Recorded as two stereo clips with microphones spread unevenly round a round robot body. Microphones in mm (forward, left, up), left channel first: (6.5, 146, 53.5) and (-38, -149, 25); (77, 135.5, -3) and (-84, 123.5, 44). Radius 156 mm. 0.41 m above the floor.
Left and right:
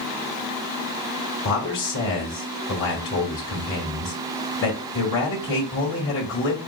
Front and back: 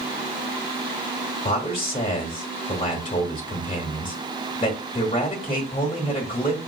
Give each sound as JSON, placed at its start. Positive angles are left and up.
{"t": 1.4, "sound": "a man speaking", "azimuth_deg": 35, "distance_m": 1.2}